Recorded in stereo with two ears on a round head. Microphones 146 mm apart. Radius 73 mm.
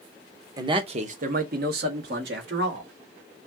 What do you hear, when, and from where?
0.6 s a man speaking: 20° right (ahead or behind), 0.8 m; by 2.9 s 75° right (ahead or behind), 2 m